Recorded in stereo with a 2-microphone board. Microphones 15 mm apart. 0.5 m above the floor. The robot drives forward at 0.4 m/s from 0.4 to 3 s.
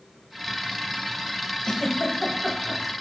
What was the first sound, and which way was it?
A giggle, 55° left (ahead or behind).